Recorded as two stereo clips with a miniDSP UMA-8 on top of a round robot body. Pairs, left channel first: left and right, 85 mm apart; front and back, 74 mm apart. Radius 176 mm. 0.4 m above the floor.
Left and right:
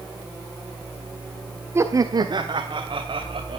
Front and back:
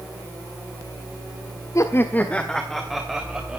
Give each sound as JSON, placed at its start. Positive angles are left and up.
{"t": 1.8, "sound": "laughter", "azimuth_deg": -35, "distance_m": 1.3}